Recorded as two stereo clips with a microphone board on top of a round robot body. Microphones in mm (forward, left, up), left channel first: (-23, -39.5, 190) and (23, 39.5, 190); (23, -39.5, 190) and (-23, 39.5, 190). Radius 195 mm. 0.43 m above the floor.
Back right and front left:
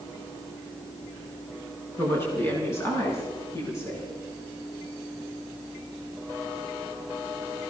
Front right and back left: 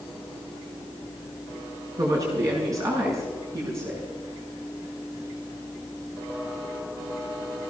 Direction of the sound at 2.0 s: 175° left.